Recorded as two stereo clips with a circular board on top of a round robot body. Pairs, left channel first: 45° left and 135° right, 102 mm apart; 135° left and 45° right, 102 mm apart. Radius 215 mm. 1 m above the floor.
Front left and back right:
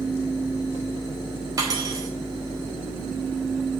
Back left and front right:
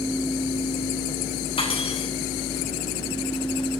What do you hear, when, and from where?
1.6 s cutlery clinking: 170° left, 3.5 m